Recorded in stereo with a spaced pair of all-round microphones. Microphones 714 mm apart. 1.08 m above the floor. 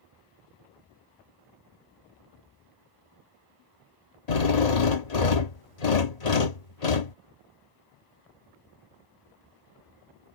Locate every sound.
4.3 s a drill: 60° left (ahead or behind)